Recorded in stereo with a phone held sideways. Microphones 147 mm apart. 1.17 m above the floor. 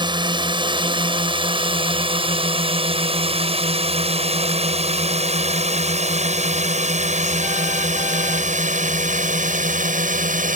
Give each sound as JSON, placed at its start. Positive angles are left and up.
{"t": 0.0, "sound": "a drone", "side_deg": -30}